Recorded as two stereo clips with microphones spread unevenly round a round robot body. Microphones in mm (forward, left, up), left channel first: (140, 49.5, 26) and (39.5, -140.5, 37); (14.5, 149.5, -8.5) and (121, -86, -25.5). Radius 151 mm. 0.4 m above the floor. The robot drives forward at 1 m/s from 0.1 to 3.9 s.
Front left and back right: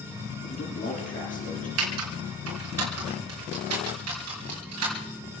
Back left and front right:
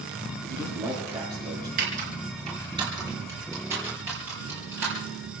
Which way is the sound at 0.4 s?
15° left.